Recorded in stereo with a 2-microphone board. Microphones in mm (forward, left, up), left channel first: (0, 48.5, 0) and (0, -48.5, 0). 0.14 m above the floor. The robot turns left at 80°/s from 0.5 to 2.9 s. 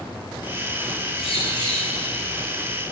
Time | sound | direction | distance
1.1 | a bird | 85° left | 8 m